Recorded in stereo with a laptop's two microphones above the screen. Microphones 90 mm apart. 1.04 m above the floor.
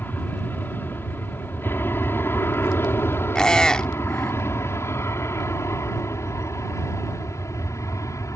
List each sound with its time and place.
0.0 s an aircraft: 25° left (ahead or behind); by 8.4 s 35° left (ahead or behind)
3.4 s a squeak: 10° left (ahead or behind)